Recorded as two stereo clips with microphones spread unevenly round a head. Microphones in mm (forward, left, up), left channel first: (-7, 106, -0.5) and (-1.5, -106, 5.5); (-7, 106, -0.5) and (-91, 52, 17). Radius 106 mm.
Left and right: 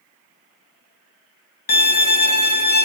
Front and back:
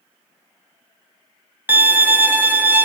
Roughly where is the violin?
Behind left.